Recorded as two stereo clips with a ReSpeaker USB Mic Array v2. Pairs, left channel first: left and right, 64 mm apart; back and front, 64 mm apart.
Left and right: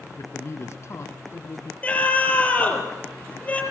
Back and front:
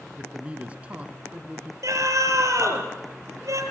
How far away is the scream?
About 6 m.